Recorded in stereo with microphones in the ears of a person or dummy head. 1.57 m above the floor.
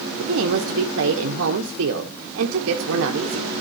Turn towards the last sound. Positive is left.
turn(degrees=-75)  # may be behind; listen again after turning